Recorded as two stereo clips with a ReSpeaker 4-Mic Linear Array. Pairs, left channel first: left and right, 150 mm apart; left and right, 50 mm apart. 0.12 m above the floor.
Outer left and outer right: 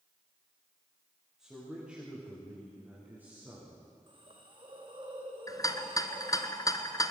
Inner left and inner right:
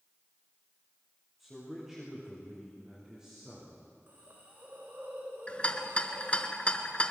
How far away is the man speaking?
About 9 m.